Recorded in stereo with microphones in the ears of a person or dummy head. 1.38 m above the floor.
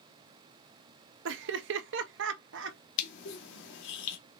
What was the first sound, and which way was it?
Laughter, 65° right (ahead or behind).